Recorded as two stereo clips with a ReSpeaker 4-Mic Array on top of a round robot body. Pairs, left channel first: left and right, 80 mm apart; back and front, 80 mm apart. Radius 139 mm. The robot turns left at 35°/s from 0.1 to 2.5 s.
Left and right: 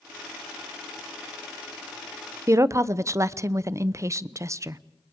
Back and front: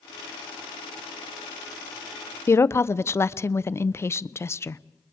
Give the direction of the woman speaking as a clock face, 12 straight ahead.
4 o'clock.